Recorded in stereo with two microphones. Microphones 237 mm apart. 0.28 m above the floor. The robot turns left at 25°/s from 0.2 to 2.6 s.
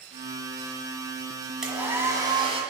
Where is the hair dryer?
5° right (ahead or behind), 1.6 m; by 2.6 s 25° right (ahead or behind), 1.6 m.